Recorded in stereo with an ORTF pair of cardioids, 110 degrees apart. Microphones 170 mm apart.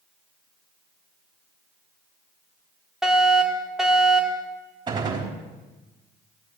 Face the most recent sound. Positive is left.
turn(degrees=-25)